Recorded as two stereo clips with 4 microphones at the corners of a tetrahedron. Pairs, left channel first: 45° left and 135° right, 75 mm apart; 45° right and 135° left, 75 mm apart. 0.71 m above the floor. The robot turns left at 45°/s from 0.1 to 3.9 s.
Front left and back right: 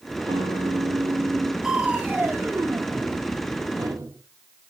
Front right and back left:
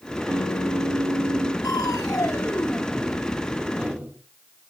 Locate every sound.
0.3 s a guitar: 140° right, 4 m; by 1.5 s 160° left, 4 m
1.6 s crushing: 55° right, 1.7 m; by 4.2 s 155° right, 1.7 m